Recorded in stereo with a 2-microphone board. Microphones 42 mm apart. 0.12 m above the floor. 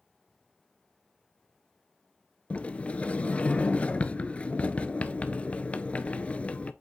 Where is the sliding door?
30° left (ahead or behind), 0.5 m.